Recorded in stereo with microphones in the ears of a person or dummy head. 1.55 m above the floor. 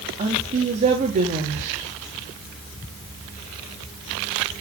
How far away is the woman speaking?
About 3.5 m.